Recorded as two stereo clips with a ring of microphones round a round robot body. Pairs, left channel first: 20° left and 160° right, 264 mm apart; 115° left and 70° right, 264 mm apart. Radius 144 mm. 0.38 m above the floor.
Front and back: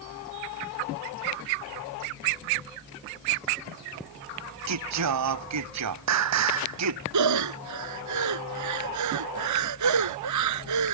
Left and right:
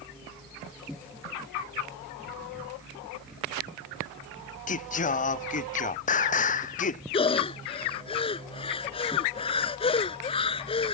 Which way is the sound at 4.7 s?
175° left.